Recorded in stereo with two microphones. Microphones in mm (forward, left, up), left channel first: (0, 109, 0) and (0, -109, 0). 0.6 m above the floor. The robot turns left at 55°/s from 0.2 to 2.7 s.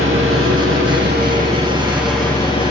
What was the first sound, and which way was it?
An engine running, 75° right.